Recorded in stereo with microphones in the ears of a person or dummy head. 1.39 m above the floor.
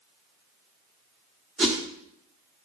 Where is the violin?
No violin in this recording.